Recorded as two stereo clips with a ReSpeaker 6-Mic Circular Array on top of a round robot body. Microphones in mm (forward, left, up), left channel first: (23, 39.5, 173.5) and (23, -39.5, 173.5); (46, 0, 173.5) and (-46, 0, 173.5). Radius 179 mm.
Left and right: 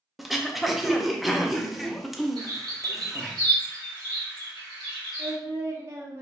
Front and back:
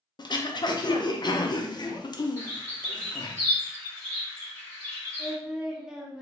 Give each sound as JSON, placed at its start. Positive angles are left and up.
{"t": 0.2, "sound": "throat clearing", "azimuth_deg": 0, "distance_m": 0.7}
{"t": 2.4, "sound": "a bird", "azimuth_deg": -65, "distance_m": 1.8}
{"t": 5.2, "sound": "singing", "azimuth_deg": -100, "distance_m": 1.1}